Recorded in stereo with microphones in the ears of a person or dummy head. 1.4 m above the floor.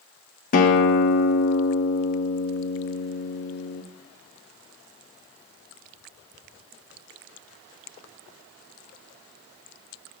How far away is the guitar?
About 1.0 m.